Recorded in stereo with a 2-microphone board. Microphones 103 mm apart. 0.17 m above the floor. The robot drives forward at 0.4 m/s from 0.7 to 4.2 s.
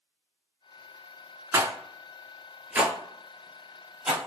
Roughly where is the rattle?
Right.